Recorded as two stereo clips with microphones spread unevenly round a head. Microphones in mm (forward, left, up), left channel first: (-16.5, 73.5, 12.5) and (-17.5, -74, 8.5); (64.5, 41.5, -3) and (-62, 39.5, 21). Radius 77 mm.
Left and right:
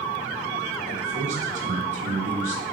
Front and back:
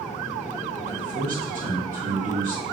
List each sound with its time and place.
0.9 s a man speaking: 130° right, 1.3 m